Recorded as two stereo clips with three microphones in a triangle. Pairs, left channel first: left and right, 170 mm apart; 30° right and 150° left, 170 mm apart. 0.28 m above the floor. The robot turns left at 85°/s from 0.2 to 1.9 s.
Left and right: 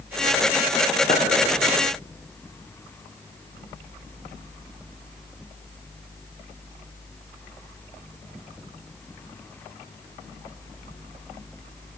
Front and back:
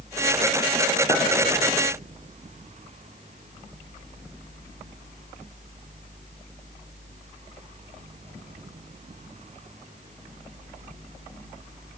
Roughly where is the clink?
Ahead left.